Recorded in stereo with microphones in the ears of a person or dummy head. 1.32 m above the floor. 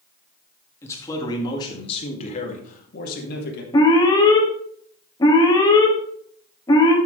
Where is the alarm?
25° left (ahead or behind), 2.0 m.